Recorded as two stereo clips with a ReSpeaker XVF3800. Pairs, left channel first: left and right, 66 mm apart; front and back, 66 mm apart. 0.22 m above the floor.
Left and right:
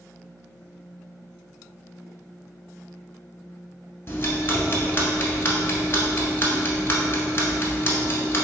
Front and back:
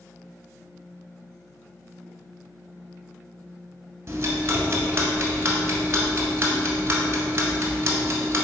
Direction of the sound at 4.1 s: 140° left.